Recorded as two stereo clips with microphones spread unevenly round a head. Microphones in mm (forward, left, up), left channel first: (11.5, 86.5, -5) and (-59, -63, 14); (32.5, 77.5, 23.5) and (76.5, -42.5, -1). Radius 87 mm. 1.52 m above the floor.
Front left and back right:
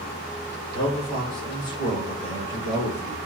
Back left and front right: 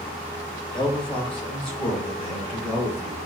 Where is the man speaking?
55° left, 1.7 m; by 3.2 s 80° left, 3 m.